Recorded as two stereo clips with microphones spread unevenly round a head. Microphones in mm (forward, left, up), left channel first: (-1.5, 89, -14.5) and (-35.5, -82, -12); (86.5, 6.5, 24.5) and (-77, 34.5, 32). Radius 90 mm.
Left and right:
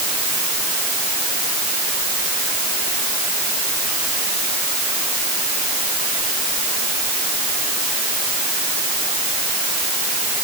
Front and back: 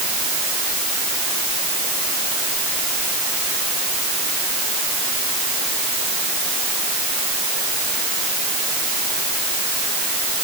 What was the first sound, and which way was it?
Only background noise.